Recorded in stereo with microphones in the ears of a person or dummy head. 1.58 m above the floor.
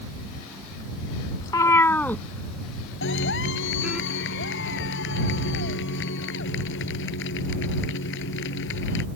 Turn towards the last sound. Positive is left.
turn(degrees=70)  # may be behind; listen again after turning